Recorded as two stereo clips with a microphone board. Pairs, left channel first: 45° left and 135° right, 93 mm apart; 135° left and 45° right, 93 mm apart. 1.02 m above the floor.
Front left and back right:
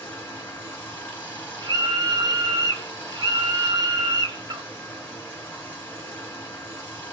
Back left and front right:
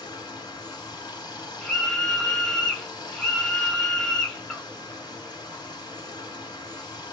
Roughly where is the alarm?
I don't hear an alarm.